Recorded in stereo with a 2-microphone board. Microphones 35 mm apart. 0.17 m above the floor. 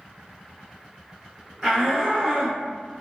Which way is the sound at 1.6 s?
20° right (ahead or behind).